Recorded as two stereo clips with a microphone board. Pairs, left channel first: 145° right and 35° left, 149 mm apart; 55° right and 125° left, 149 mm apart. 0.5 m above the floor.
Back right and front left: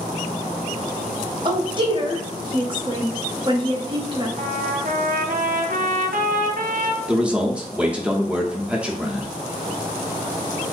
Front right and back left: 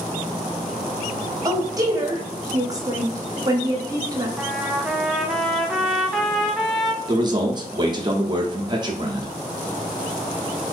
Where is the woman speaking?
70° left, 1.0 m.